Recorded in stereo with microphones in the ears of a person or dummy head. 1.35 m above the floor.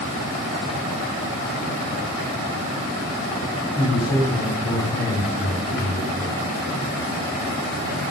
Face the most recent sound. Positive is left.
turn(degrees=5)  # may be behind; listen again after turning